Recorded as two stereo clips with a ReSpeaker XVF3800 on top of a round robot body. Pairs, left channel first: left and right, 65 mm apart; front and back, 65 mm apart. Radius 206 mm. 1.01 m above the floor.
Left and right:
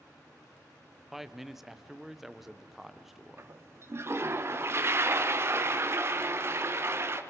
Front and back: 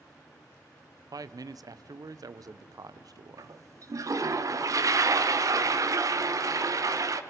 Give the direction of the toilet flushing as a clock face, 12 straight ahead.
5 o'clock.